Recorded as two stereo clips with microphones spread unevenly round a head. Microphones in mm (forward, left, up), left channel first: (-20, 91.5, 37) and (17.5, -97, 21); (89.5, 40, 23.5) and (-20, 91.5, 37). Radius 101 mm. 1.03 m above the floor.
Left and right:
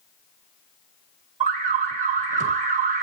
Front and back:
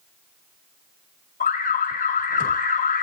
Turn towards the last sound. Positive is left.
turn(degrees=-25)